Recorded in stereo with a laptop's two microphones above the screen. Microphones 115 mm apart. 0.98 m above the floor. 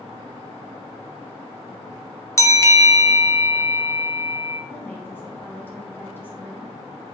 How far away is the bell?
About 0.9 m.